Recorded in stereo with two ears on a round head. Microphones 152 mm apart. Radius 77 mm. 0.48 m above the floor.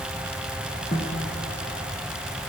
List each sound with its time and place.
0.9 s a snare drum: 35° left (ahead or behind), 5 m